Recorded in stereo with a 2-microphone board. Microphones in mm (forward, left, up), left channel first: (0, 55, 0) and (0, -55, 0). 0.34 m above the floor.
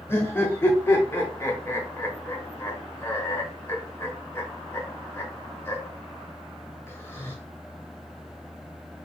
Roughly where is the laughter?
Left.